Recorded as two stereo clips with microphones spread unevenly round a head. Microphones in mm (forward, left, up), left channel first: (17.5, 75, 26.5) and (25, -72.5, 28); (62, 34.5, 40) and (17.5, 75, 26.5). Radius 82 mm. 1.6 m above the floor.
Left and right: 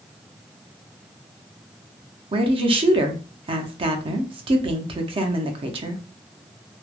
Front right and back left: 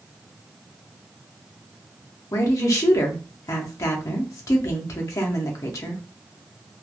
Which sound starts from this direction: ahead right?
A woman speaking, at 2.3 s.